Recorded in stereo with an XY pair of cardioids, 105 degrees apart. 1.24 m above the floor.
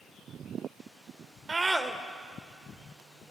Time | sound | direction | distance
1.5 | a scream | 25° right | 1.2 m